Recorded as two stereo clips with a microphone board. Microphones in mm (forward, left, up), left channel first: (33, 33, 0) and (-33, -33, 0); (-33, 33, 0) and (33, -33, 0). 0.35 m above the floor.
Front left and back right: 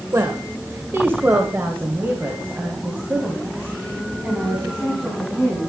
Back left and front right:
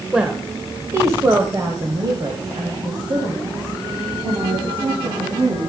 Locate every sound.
0.1 s a woman speaking: 120° right, 1.2 m; by 5.7 s 55° right, 3.5 m